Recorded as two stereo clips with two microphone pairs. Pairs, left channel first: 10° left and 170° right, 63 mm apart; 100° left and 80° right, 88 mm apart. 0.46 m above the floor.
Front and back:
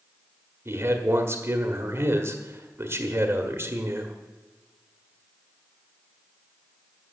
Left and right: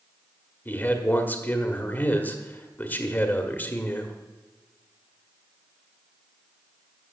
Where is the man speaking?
165° left, 1.5 m.